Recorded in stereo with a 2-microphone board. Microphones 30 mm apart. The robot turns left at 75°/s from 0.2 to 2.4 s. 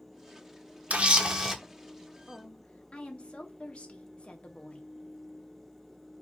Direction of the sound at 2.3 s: 30° left (ahead or behind).